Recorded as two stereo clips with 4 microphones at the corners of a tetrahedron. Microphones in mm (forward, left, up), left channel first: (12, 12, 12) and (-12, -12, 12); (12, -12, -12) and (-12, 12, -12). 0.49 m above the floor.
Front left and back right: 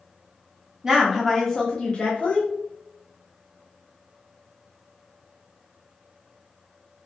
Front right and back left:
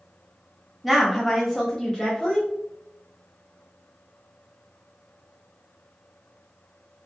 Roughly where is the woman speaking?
Behind right.